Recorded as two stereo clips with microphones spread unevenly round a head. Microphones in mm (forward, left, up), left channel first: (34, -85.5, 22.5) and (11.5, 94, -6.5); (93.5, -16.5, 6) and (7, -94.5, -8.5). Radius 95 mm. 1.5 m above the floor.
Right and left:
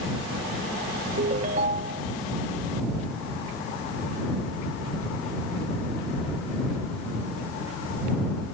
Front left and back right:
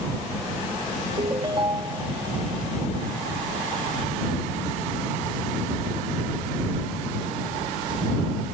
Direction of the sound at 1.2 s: 155° left.